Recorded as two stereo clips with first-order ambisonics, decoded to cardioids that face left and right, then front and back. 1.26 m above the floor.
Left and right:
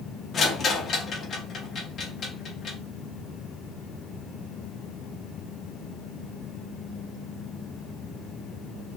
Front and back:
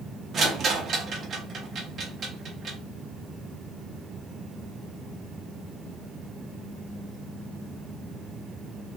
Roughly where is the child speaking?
No child speaking in this recording.